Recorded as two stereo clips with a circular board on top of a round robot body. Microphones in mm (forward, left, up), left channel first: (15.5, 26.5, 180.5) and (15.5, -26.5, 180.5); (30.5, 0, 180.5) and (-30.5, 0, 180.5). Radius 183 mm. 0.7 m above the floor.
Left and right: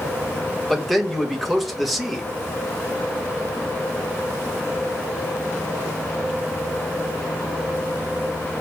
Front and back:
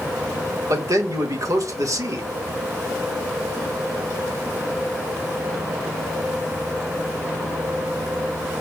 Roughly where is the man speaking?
Behind.